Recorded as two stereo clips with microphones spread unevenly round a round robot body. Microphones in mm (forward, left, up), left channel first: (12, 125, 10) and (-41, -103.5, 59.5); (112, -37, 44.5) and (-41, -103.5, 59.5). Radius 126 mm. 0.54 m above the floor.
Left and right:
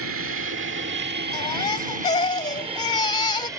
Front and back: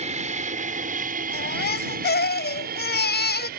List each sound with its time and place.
0.0 s an aircraft: 120° right; by 3.6 s 175° left
1.3 s a baby crying: 5° left